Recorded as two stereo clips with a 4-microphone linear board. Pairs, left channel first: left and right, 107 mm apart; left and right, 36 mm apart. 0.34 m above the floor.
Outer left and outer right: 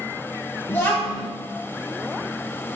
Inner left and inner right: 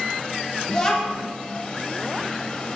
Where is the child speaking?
20° left (ahead or behind), 1.4 m.